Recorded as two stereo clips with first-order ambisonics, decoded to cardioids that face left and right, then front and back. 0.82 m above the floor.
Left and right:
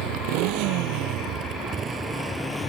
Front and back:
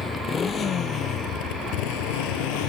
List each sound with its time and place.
0.0 s a motorcycle: 75° right; by 2.7 s 15° left